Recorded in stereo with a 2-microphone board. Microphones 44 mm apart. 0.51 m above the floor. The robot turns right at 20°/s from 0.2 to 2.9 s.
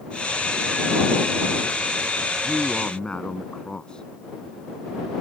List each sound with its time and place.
2.4 s a man speaking: 30° left (ahead or behind); by 4.1 s 20° left (ahead or behind)